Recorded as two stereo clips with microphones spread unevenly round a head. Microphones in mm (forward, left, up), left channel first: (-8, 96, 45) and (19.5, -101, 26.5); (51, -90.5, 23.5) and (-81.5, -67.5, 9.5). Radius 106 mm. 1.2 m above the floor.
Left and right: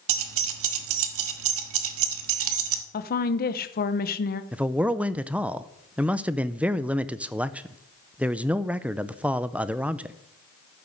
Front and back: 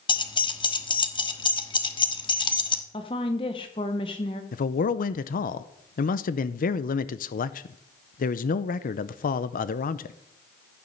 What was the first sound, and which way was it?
Keys jangling, 60° right.